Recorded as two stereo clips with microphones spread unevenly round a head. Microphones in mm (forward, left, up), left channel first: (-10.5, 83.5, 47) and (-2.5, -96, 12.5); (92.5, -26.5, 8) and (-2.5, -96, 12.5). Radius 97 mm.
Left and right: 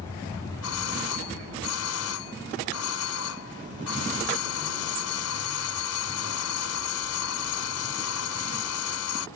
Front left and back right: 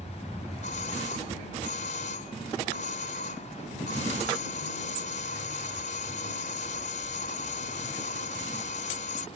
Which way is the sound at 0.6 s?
85° left.